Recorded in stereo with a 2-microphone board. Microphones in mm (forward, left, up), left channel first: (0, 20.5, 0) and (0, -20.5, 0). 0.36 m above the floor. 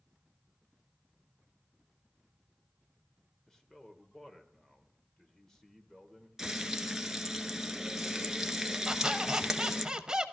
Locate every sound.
3.5 s a man speaking: 15° left (ahead or behind), 1.2 m
6.4 s frying: 15° right (ahead or behind), 0.9 m
8.9 s a squeak: 20° right (ahead or behind), 0.7 m